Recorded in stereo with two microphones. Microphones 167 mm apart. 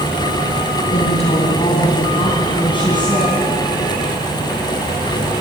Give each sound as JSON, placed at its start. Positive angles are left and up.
{"t": 0.9, "sound": "a woman speaking", "side_deg": 45, "distance_m": 3.0}